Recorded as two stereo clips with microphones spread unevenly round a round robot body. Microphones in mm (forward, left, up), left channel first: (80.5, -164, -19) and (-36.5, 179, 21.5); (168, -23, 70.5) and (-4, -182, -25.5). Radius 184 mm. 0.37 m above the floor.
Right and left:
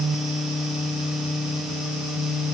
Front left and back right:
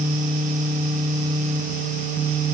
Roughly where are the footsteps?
No footsteps in this recording.